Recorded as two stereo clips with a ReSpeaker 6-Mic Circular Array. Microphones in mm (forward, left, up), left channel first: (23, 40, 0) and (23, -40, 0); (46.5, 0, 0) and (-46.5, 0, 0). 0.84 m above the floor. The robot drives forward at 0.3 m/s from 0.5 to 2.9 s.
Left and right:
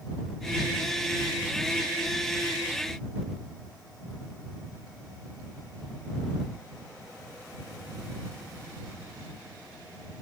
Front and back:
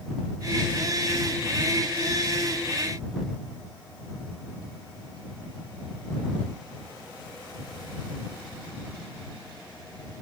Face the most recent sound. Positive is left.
No sound to turn to.